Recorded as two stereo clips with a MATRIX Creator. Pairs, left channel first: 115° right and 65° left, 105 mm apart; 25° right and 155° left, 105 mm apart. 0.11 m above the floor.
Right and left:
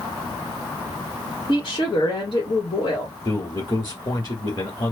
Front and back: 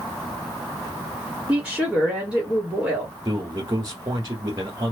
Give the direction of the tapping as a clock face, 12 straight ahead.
I don't hear tapping.